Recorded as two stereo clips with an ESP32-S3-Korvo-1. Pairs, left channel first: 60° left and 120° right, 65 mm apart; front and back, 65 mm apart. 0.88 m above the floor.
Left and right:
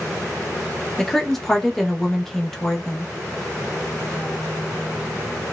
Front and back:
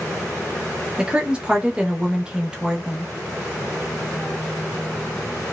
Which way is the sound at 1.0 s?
135° left.